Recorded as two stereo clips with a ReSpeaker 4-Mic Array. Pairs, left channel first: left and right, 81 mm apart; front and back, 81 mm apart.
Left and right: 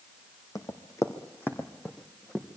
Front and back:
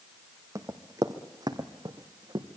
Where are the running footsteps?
130° left, 2 m; by 2.5 s 175° left, 2.5 m.